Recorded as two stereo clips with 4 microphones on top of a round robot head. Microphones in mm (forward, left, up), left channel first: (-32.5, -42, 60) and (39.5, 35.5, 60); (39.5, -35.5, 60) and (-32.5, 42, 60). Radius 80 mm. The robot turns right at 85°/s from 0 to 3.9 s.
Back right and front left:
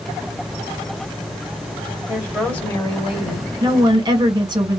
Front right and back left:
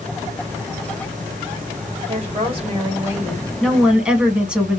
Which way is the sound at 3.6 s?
30° left.